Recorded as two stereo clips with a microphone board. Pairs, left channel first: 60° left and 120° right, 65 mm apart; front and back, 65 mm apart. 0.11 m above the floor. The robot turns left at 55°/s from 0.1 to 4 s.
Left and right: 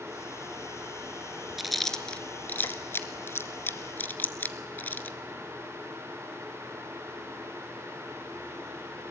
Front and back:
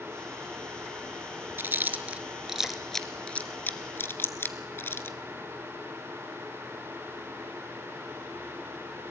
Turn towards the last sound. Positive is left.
turn(degrees=20)